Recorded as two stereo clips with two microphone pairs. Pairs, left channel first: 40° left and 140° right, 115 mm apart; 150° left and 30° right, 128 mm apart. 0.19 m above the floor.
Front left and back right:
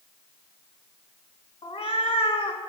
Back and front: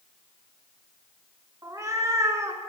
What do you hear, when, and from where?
1.6 s a cat meowing: 30° left, 0.5 m